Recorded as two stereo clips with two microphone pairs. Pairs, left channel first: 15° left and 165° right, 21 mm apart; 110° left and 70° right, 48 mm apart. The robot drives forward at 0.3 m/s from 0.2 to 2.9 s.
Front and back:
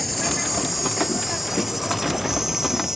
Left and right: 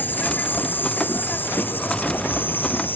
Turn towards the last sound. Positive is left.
turn(degrees=135)